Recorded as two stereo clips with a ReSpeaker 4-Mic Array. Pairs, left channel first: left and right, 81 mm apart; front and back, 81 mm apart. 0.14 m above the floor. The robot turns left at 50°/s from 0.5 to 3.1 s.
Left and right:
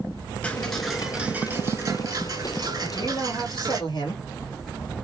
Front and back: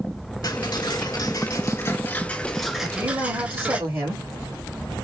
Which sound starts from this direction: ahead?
Ticking, at 0.4 s.